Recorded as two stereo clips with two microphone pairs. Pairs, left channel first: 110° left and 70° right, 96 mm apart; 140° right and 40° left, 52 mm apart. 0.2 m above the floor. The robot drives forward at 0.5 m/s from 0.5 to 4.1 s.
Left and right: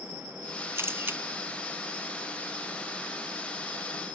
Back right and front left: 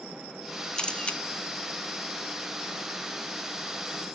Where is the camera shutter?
90° right, 1.0 m; by 1.2 s 115° right, 1.1 m.